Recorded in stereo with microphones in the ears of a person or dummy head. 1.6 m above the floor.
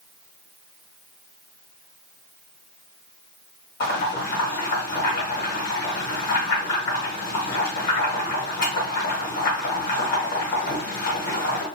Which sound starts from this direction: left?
Boiling, at 3.8 s.